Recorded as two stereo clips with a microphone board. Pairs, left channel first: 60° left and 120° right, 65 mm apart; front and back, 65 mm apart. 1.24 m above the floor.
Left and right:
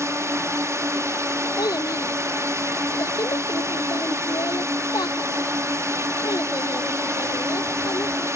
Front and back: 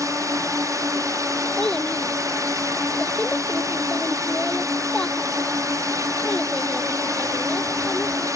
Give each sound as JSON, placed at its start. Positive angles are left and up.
{"t": 0.0, "sound": "a drone", "azimuth_deg": -155}
{"t": 1.6, "sound": "a child speaking", "azimuth_deg": 75}